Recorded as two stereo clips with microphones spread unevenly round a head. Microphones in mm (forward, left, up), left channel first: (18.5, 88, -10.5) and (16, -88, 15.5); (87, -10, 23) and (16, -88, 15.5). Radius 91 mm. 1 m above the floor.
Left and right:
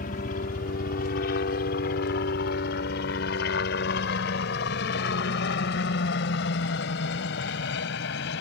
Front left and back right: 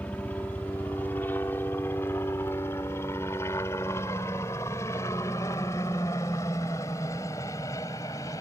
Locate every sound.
0.0 s a helicopter: 125° left; by 8.4 s 120° left